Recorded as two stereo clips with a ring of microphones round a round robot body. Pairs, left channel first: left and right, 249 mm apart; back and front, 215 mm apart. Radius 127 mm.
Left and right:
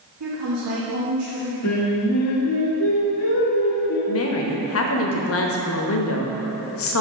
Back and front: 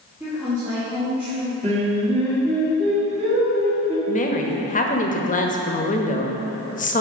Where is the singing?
60° left, 1.9 m.